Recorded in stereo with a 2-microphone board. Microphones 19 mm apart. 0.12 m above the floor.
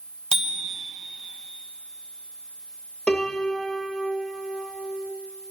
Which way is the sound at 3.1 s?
60° left (ahead or behind).